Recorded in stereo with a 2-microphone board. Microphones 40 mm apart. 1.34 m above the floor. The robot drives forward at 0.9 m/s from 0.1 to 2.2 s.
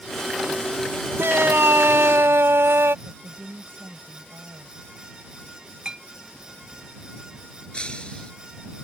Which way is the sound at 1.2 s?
80° right.